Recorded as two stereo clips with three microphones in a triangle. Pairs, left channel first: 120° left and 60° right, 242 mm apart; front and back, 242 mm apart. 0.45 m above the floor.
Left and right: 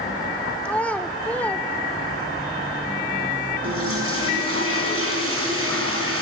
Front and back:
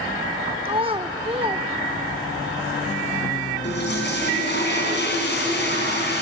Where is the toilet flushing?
40° right, 4 m.